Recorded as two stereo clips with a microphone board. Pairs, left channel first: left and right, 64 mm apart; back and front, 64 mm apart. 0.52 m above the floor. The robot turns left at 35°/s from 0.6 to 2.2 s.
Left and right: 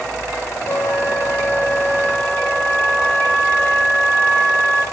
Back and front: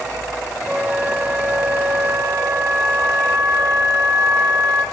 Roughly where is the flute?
Left.